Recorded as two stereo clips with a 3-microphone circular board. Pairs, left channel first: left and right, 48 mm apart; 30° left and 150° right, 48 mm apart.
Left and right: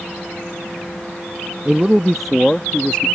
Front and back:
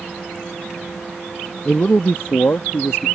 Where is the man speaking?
30° right; by 3.1 s 30° left.